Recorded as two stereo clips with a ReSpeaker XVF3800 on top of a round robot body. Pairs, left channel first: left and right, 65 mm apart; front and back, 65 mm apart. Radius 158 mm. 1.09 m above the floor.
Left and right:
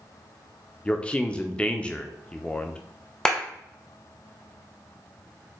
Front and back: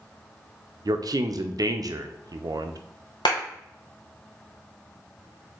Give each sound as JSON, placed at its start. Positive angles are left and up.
{"t": 0.8, "sound": "a man speaking", "azimuth_deg": 160, "distance_m": 0.6}
{"t": 3.2, "sound": "a clap", "azimuth_deg": 10, "distance_m": 0.7}